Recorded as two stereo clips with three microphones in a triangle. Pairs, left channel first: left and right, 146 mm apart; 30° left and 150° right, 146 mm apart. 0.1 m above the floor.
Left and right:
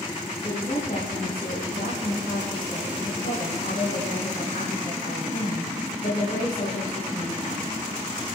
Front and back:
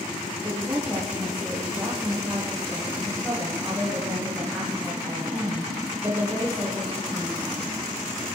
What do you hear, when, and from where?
0.4 s a woman speaking: 125° left, 5 m